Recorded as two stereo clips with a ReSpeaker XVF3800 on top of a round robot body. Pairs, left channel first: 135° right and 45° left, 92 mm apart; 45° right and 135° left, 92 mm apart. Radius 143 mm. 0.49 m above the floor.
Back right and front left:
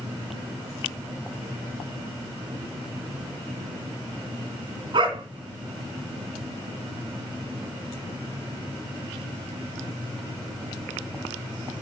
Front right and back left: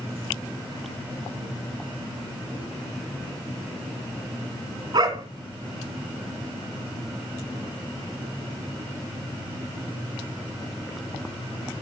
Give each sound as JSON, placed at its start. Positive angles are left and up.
{"t": 4.9, "sound": "a dog barking", "azimuth_deg": 90, "distance_m": 1.9}